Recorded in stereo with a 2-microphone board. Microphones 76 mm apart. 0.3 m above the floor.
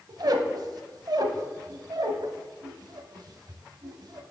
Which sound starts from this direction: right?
A squeak, at 0.1 s.